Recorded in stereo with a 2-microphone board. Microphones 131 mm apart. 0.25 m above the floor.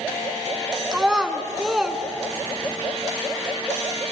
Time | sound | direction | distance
0.9 | a child speaking | 5° right (ahead or behind) | 1.6 m